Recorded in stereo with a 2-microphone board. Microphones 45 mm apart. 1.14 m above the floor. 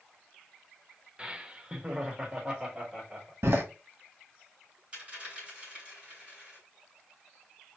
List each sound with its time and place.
1.2 s laughter: 25° right (ahead or behind), 0.7 m; by 3.3 s 15° right (ahead or behind), 2 m
3.4 s a door slam: 70° right (ahead or behind), 1.1 m
4.9 s a dropped coin: 25° right (ahead or behind), 3.5 m